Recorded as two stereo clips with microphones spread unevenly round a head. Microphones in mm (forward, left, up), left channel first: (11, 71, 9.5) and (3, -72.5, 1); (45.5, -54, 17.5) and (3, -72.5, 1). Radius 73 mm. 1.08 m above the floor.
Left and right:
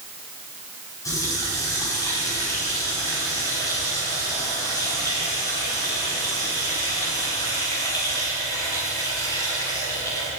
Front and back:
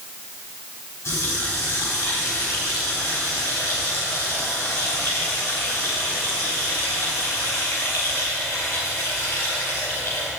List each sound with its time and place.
1.1 s a running tap: 20° left, 4.5 m